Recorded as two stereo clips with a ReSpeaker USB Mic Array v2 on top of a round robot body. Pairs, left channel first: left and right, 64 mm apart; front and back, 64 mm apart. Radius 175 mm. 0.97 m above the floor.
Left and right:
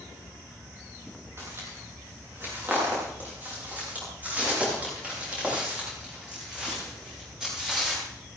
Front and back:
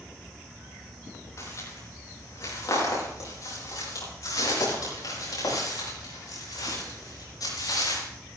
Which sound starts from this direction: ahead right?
Footsteps, at 1.4 s.